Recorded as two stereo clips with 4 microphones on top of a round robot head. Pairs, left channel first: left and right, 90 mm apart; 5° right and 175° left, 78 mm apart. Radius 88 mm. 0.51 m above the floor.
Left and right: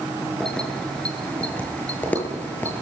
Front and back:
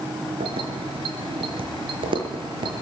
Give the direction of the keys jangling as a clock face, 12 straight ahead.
6 o'clock.